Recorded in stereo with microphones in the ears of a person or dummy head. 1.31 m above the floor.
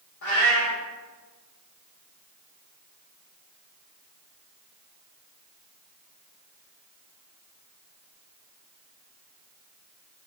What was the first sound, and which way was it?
A cat meowing, 55° left (ahead or behind).